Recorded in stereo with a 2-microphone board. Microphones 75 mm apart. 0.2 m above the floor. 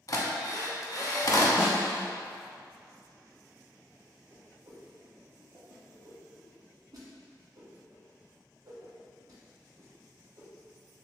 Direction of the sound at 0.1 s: 50° left (ahead or behind).